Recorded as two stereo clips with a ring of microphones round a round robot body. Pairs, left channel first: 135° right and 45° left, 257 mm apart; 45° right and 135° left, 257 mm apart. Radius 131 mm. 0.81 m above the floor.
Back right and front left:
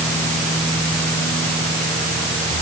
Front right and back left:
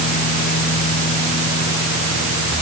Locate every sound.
Only background noise.